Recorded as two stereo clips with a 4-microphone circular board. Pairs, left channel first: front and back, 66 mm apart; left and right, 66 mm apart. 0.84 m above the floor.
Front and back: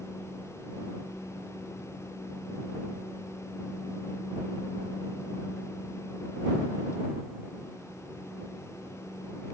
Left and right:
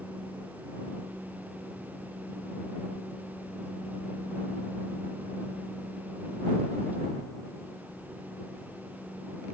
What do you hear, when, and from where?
Only background noise.